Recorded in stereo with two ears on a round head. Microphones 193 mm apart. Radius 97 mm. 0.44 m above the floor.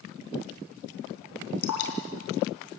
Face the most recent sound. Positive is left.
turn(degrees=80)